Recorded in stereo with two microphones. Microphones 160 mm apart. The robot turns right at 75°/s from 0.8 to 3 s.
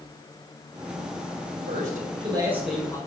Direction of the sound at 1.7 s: 80° right.